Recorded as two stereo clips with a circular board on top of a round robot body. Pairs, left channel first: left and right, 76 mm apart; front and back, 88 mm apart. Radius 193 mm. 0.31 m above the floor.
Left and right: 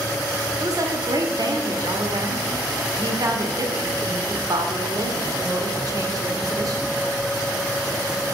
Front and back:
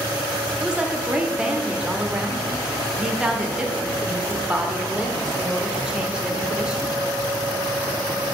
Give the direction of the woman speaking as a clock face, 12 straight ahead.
3 o'clock.